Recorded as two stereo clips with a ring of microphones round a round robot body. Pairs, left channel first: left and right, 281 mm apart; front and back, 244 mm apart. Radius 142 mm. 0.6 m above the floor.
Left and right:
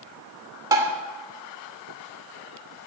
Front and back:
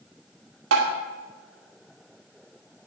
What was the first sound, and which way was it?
Tapping, 165° right.